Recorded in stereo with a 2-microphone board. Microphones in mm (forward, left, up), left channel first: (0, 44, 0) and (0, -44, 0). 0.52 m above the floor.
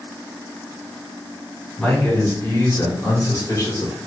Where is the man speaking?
20° left (ahead or behind), 1.6 m; by 3.9 s 45° left (ahead or behind), 1.5 m.